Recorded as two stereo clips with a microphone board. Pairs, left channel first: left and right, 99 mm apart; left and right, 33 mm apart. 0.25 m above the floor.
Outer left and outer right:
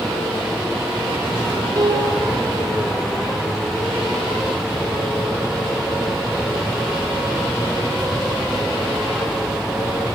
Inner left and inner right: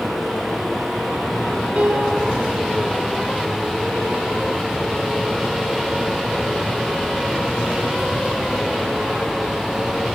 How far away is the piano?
About 5.5 m.